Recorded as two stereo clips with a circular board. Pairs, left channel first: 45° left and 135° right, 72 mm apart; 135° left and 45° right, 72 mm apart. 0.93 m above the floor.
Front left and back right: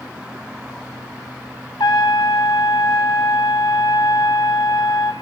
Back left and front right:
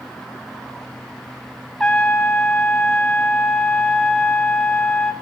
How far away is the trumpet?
About 3 m.